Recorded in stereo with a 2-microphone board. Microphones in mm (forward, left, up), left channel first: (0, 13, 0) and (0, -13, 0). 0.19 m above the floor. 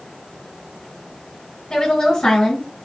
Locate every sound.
1.7 s a woman speaking: 20° left (ahead or behind), 2.5 m